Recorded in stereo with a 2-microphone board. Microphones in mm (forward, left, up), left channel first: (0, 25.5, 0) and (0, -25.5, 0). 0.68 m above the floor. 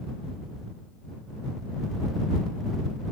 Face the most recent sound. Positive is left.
No sound to turn to.